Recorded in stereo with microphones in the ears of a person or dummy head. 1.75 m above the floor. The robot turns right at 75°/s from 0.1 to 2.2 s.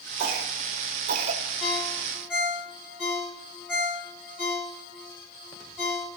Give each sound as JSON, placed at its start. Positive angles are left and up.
{"t": 0.2, "sound": "a cough", "side_deg": -45, "distance_m": 0.9}
{"t": 1.6, "sound": "a ringtone", "side_deg": 40, "distance_m": 3.0}